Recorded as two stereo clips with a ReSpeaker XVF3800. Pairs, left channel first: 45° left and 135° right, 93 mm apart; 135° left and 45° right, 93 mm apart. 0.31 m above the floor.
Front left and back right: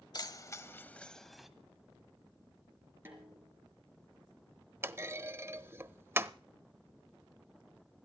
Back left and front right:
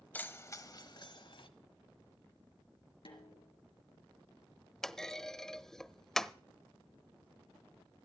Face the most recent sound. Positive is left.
turn(degrees=-145)